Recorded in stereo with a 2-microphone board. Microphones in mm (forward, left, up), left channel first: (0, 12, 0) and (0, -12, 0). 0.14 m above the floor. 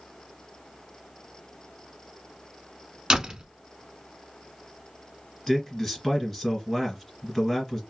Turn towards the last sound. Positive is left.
turn(degrees=15)  # may be behind; listen again after turning